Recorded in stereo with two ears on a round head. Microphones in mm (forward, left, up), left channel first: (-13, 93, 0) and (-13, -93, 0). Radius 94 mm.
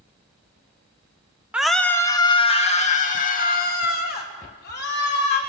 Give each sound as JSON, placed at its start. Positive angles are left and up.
{"t": 1.5, "sound": "a scream", "side_deg": -5, "distance_m": 1.3}